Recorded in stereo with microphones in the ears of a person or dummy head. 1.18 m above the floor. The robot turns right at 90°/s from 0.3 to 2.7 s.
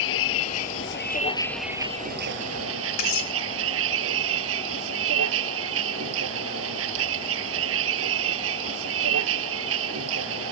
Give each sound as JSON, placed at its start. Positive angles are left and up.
{"t": 0.0, "sound": "a vehicle", "azimuth_deg": 65}
{"t": 3.0, "sound": "cutlery clinking", "side_deg": 50}